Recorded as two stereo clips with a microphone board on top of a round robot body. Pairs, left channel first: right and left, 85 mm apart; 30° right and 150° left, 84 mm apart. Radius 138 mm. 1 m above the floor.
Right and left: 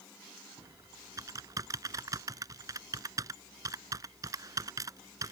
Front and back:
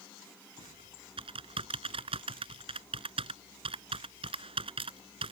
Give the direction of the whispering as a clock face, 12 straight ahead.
No whispering in this recording.